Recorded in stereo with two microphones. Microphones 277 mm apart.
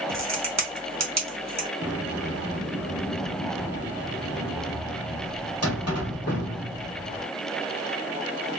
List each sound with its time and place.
0.1 s a crack: 65° right (ahead or behind), 1.2 m
1.8 s a sliding door: 55° left (ahead or behind), 1.1 m